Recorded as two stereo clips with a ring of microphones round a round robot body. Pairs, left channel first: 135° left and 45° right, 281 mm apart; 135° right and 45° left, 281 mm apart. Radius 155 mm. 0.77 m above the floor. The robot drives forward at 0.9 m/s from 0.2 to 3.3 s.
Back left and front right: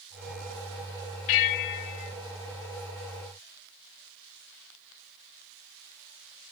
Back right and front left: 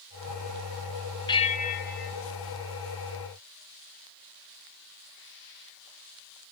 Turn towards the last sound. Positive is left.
turn(degrees=175)